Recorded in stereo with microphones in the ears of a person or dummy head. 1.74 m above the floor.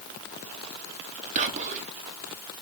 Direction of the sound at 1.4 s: 35° right (ahead or behind).